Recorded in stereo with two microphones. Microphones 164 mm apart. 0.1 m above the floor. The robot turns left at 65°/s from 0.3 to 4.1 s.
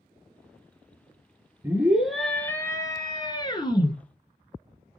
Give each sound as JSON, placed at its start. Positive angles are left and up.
{"t": 1.6, "sound": "a scream", "side_deg": -15, "distance_m": 1.2}